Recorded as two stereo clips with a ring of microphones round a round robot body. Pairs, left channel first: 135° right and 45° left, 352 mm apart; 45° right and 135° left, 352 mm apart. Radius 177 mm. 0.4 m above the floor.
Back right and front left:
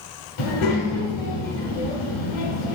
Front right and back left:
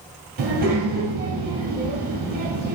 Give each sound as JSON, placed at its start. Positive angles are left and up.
{"t": 0.4, "sound": "a child speaking", "azimuth_deg": -165, "distance_m": 1.9}